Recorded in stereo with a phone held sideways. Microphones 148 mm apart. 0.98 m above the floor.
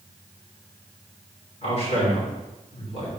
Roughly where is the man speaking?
Left.